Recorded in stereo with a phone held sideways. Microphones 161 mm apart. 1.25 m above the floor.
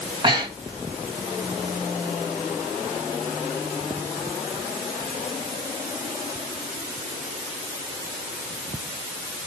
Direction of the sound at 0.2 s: 30° right (ahead or behind).